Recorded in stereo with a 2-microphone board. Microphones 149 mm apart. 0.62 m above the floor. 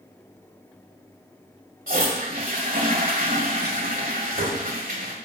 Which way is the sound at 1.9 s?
70° right (ahead or behind).